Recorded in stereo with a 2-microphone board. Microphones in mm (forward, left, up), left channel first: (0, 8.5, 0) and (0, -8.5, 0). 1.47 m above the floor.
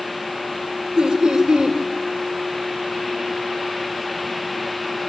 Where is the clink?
No clink in this recording.